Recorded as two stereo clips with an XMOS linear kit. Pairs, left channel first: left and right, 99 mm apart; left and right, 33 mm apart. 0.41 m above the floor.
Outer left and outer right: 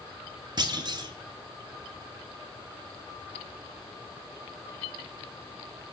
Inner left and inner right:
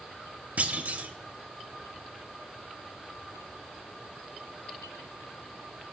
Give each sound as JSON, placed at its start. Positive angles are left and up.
{"t": 0.6, "sound": "a clunk", "side_deg": -45, "distance_m": 0.6}